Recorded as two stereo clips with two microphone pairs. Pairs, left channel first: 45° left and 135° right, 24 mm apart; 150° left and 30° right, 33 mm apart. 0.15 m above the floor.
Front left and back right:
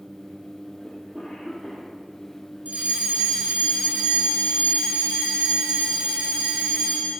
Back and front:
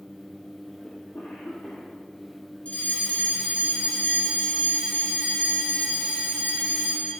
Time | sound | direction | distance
0.8 | a cough | 155° left | 6.5 m
2.6 | a fire alarm | 160° right | 7 m